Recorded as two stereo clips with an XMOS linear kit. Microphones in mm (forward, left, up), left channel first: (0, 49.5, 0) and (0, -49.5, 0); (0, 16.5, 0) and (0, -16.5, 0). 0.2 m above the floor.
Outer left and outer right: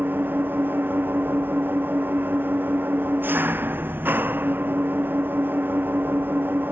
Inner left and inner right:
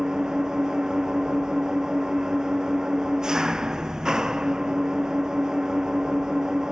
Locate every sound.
0.0 s an engine running: 20° right (ahead or behind)